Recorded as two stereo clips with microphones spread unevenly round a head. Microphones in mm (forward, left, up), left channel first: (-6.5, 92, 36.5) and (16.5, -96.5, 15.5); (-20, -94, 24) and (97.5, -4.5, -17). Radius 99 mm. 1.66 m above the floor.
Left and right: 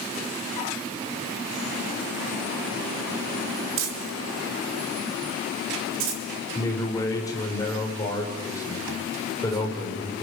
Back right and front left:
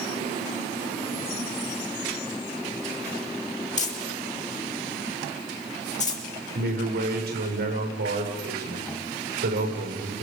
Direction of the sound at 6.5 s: 25° left.